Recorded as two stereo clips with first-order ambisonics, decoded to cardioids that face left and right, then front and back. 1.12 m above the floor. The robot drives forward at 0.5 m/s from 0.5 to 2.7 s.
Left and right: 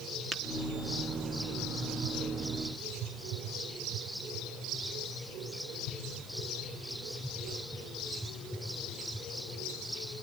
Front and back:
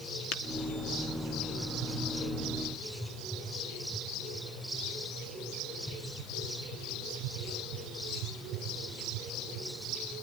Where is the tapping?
25° right, 1.3 m.